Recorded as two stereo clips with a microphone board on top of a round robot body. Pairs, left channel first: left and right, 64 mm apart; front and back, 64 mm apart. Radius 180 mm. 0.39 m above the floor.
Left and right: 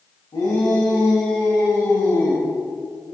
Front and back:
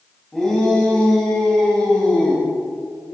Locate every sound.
0.3 s a shout: 85° left, 4.5 m; by 2.4 s 75° left, 6 m